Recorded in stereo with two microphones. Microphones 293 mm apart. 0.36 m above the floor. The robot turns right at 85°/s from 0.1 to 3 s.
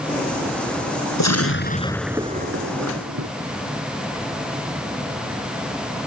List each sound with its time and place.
1.2 s an explosion: 105° left; by 3.3 s 100° right